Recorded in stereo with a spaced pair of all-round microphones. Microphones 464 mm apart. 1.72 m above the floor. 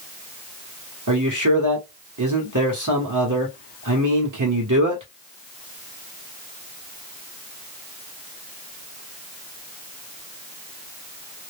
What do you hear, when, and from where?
1.1 s a man speaking: 40° right (ahead or behind), 1.0 m